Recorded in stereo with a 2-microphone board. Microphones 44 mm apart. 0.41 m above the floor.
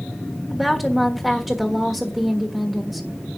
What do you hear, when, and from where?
0.5 s a woman speaking: 5° right (ahead or behind), 1.3 m